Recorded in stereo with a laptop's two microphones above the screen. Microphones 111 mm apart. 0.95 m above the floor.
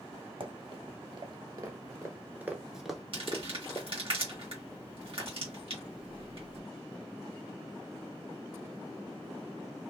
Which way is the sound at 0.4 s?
50° right (ahead or behind).